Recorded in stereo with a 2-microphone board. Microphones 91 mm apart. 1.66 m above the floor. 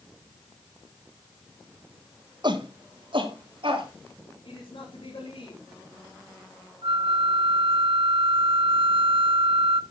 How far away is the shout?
About 1.8 m.